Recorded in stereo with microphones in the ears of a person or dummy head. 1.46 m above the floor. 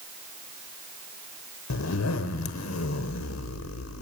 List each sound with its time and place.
1.7 s a zipper: 80° left, 0.9 m